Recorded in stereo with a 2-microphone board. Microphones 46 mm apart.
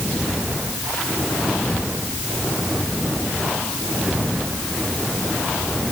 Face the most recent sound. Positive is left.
No sound to turn to.